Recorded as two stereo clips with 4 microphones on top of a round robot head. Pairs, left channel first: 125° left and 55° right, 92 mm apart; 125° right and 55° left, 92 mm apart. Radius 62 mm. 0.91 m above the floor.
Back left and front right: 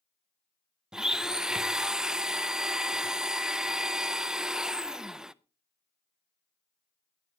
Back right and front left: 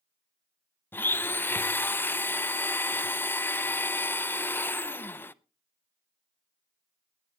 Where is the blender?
125° right, 0.6 m.